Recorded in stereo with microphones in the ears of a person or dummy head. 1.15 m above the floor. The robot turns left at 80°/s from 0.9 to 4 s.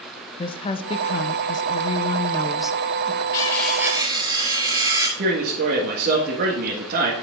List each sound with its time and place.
0.4 s a woman speaking: 140° left, 0.6 m; by 3.2 s 50° right, 0.6 m
3.3 s cutlery clinking: 30° left, 3.5 m; by 5.1 s 25° right, 3.5 m
5.2 s a man speaking: 55° right (ahead or behind), 1.6 m